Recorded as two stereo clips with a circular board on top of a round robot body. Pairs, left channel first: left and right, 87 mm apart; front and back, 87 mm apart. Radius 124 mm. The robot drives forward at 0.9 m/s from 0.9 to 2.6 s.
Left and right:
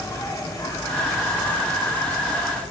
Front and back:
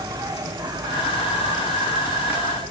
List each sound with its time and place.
0.0 s an insect: 140° left, 1.8 m; by 2.7 s 160° left, 3 m